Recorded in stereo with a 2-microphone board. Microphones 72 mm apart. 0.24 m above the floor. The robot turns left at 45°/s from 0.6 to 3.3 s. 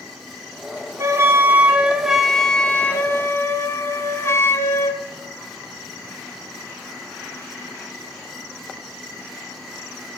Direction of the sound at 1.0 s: 125° right.